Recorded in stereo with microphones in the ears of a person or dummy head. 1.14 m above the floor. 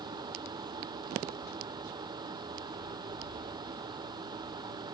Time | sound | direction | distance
0.0 | a fan | 25° right (ahead or behind) | ?